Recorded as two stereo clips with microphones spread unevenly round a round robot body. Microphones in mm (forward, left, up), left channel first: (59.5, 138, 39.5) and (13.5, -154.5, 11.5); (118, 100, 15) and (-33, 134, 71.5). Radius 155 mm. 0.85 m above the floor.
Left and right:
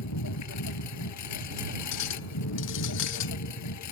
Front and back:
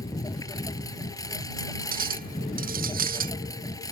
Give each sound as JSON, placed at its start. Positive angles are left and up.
{"t": 0.0, "sound": "a lawn mower", "azimuth_deg": 55}
{"t": 1.9, "sound": "a clink", "azimuth_deg": 130}